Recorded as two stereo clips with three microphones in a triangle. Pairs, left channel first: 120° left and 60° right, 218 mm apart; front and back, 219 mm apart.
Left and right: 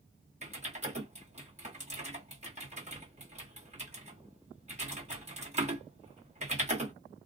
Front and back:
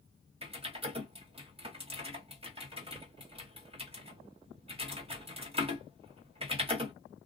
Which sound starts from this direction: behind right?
Typing on a keyboard, at 0.4 s.